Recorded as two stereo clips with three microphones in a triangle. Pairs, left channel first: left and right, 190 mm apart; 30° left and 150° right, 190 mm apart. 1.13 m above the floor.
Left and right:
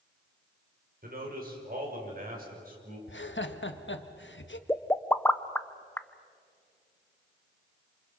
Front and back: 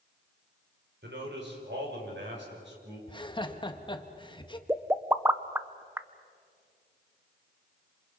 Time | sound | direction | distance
1.0 | a man speaking | 130° right | 5 m
3.1 | laughter | 95° left | 1.4 m
4.7 | a pop | 155° left | 0.7 m